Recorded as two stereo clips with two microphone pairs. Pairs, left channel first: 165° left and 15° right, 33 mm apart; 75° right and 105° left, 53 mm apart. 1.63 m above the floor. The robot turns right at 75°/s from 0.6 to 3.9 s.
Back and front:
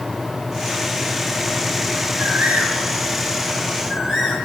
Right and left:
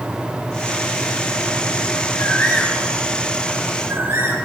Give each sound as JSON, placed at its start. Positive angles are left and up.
{"t": 2.2, "sound": "a bird", "azimuth_deg": -70, "distance_m": 9.5}